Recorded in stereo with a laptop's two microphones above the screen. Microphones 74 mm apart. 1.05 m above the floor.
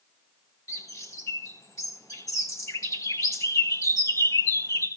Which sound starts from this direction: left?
A bird, at 0.7 s.